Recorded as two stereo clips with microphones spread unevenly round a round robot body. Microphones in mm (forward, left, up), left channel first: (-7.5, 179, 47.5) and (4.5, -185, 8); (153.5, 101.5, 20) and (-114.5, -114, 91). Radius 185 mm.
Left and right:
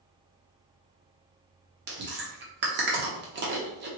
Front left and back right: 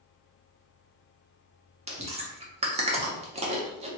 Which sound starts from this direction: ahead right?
Chewing, at 1.9 s.